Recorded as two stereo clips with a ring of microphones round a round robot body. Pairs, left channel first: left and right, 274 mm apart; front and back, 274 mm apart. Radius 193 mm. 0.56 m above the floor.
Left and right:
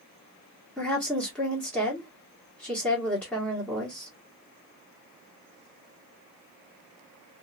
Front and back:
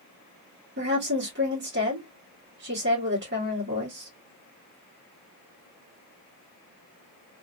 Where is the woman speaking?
175° left, 1.5 m.